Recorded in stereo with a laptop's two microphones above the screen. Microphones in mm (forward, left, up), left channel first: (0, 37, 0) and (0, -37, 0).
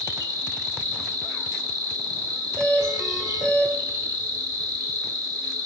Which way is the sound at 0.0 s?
60° right (ahead or behind).